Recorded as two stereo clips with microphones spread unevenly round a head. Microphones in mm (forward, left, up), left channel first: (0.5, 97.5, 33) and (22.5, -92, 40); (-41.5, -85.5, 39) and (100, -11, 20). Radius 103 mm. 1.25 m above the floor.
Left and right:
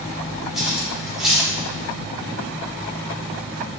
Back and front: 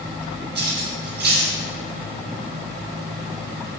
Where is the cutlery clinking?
5° left, 2.5 m.